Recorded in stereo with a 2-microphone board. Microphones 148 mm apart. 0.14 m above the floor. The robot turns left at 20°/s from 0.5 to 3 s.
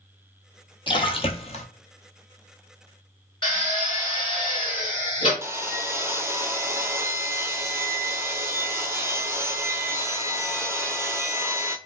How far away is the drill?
About 1.9 m.